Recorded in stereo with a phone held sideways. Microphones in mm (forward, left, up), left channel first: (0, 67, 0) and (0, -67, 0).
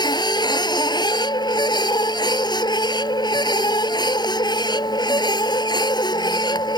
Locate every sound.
0.0 s a machine running: 30° left (ahead or behind)